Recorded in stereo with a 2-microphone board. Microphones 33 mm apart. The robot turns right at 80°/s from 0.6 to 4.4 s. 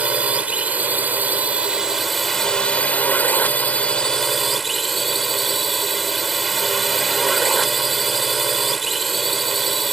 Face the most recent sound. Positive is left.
turn(degrees=180)